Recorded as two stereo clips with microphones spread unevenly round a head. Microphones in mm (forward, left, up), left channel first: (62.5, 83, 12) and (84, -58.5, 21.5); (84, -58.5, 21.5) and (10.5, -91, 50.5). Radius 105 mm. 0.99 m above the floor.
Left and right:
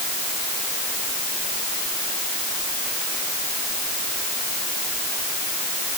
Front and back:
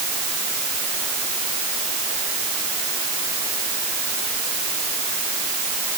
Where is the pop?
No pop in this recording.